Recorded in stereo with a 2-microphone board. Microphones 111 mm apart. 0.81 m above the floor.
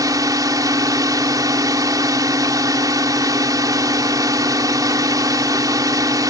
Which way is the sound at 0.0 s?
35° right (ahead or behind).